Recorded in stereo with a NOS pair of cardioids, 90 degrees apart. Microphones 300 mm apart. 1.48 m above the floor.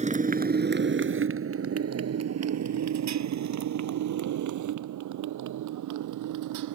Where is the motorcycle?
25° right; by 6.8 s 80° right.